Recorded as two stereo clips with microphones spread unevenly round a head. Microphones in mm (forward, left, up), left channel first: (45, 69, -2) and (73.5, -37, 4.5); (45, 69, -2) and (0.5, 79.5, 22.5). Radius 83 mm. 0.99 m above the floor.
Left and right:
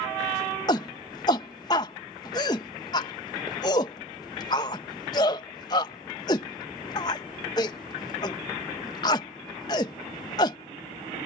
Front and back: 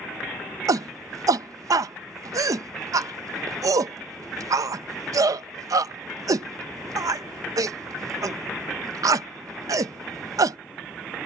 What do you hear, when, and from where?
0.7 s a shout: 160° left